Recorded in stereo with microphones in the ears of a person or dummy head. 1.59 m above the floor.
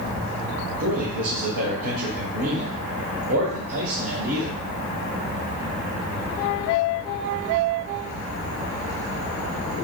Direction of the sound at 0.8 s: 75° right (ahead or behind).